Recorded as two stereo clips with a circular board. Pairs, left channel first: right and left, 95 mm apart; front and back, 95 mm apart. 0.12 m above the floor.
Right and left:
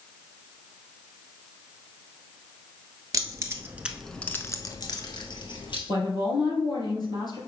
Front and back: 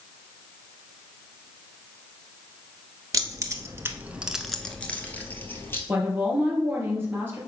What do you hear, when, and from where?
3.1 s keys jangling: 135° left, 1.3 m; by 5.8 s 65° right, 2.0 m
5.9 s a woman speaking: 120° right, 3 m